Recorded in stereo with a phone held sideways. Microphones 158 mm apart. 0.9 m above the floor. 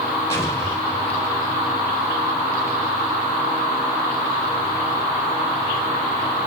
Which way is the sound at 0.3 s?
15° left (ahead or behind).